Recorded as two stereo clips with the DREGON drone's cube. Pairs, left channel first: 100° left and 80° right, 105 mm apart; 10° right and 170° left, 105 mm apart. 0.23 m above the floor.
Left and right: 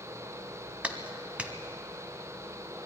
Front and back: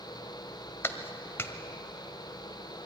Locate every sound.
0.8 s a clap: 25° right, 1.1 m